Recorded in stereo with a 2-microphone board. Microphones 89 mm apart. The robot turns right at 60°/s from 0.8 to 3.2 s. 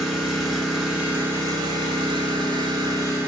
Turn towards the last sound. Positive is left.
turn(degrees=-35)